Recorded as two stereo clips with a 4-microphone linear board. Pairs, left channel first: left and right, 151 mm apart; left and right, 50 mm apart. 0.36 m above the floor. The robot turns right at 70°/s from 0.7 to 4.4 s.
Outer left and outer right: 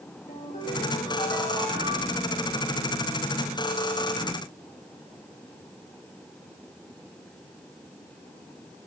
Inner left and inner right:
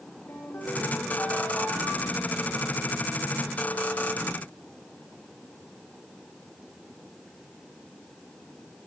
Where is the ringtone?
125° left, 8 m; by 2.3 s 125° right, 8 m.